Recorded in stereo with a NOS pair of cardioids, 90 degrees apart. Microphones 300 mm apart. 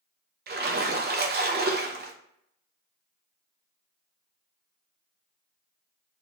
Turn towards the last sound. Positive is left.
turn(degrees=-35)